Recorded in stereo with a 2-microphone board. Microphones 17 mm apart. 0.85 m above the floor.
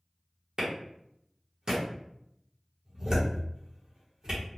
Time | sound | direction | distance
0.6 | a clap | 45° right (ahead or behind) | 1.0 m